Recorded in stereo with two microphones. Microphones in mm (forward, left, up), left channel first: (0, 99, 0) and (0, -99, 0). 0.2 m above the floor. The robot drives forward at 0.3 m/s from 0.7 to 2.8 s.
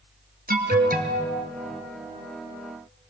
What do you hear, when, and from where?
0.5 s an alarm: 50° right (ahead or behind), 2 m; by 1.3 s 45° right (ahead or behind), 2.5 m